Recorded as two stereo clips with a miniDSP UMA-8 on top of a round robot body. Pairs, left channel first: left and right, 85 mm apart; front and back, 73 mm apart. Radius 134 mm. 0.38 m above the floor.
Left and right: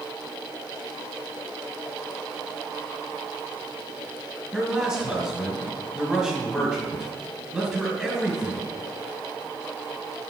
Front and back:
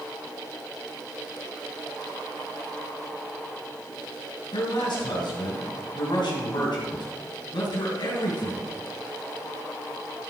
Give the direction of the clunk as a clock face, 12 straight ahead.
I don't hear a clunk.